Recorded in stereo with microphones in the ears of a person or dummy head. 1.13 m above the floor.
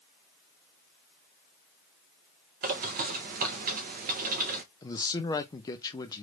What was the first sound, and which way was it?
A bird, 45° right (ahead or behind).